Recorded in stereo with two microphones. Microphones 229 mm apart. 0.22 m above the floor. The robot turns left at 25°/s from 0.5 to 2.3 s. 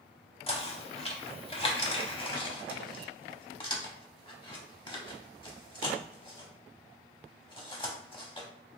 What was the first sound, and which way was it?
Knocking, 25° left (ahead or behind).